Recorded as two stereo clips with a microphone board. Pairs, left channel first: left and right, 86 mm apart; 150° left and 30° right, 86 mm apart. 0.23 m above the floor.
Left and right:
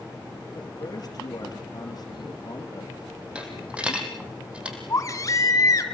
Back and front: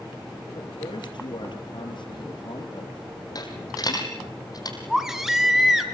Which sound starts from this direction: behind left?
A man speaking, at 0.5 s.